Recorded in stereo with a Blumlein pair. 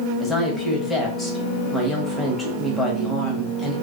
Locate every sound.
0.2 s a woman speaking: 15° left, 1.2 m